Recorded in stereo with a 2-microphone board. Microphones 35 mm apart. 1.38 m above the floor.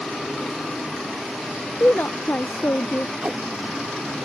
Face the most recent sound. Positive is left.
turn(degrees=-35)  # may be behind; listen again after turning